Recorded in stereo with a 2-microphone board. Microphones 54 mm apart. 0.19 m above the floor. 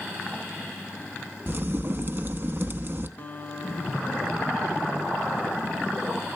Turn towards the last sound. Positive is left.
turn(degrees=35)  # may be behind; listen again after turning